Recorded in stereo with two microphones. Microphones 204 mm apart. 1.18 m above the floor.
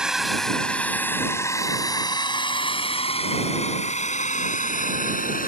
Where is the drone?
5° right (ahead or behind); by 5.5 s 45° left (ahead or behind).